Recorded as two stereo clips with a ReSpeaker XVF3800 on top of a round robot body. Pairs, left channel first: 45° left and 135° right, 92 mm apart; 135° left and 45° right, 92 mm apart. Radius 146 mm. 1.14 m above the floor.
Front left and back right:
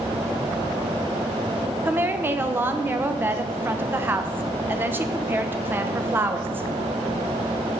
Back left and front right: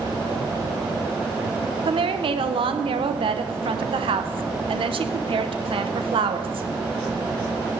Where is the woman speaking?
65° right, 0.8 m.